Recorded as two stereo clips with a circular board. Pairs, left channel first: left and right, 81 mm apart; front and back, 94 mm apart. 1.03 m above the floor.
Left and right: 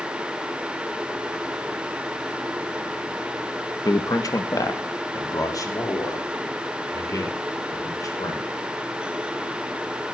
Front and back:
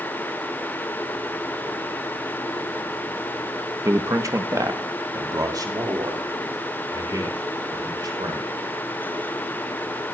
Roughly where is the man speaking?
Behind left.